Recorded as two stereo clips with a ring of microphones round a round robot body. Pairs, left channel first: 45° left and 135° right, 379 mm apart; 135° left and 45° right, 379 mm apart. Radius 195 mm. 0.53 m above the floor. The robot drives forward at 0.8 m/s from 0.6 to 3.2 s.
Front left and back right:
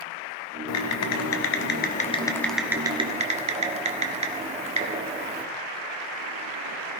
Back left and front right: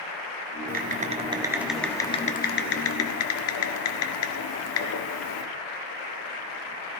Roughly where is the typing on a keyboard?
Ahead.